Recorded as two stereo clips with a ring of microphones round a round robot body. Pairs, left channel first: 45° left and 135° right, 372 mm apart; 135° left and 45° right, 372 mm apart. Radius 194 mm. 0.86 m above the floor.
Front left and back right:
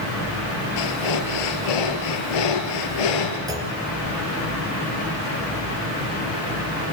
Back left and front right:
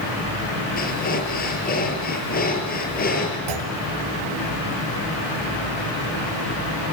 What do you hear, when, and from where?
0.8 s breathing: 65° left, 4.5 m
3.5 s a clunk: 55° right, 3 m